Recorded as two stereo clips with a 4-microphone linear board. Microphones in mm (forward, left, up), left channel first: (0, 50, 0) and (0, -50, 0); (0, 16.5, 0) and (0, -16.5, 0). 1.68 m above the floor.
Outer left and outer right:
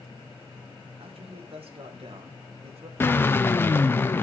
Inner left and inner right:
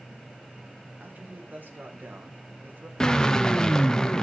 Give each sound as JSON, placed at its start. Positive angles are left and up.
{"t": 1.0, "sound": "a man speaking", "side_deg": -70, "distance_m": 2.5}
{"t": 3.0, "sound": "a drill", "side_deg": 20, "distance_m": 0.6}